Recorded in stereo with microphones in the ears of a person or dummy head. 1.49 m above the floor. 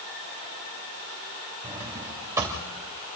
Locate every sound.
1.6 s a drawer: 10° right (ahead or behind), 2.5 m